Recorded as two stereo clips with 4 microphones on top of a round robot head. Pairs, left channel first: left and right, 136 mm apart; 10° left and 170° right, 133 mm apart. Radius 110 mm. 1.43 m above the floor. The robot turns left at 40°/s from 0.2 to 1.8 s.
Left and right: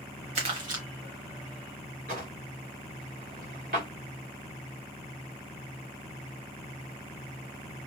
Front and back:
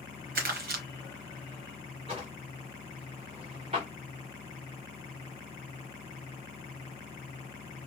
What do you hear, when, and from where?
0.3 s crumpling: 145° right, 1.0 m; by 0.8 s 165° right, 1.0 m
2.1 s a drawer: 110° right, 1.4 m